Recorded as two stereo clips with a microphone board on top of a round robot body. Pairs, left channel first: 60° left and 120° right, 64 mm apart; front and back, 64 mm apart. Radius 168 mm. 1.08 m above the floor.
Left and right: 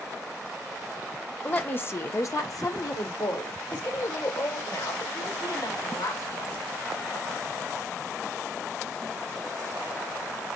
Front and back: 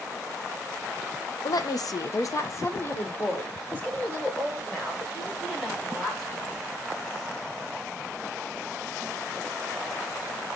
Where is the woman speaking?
5° right, 1.2 m; by 6.6 s 80° left, 4 m.